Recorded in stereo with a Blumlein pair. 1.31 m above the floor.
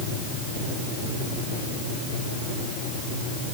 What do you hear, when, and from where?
Only background noise.